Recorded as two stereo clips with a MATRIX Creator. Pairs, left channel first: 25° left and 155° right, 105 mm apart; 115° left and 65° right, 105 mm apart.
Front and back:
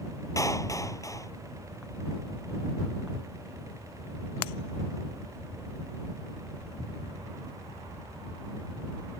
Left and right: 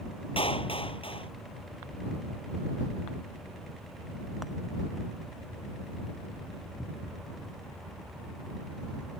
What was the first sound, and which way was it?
A clap, 80° left.